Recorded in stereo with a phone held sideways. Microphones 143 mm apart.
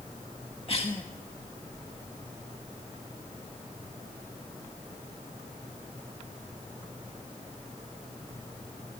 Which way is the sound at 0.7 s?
40° left (ahead or behind).